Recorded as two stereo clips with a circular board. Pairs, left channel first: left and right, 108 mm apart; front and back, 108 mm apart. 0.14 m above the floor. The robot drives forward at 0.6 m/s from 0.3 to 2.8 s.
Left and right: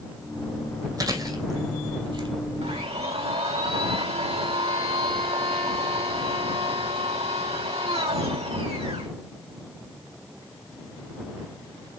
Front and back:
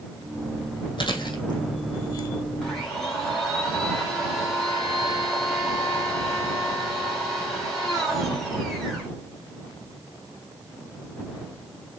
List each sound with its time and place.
1.0 s chewing: 40° right, 2.5 m; by 2.3 s 55° right, 1.9 m
2.6 s a blender: 90° right, 3 m